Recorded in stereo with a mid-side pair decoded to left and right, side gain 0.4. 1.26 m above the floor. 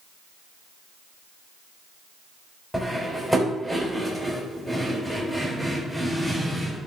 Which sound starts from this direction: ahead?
Cutlery clinking, at 2.7 s.